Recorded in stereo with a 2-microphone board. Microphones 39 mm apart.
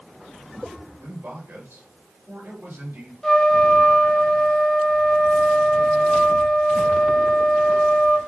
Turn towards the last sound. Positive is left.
turn(degrees=10)  # may be behind; listen again after turning